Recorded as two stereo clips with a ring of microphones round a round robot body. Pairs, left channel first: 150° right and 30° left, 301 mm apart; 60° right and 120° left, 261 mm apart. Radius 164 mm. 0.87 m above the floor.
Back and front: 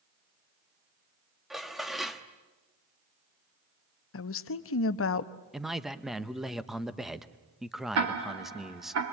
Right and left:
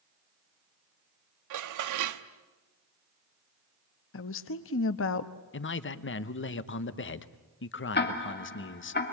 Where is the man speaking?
60° right, 1.1 m.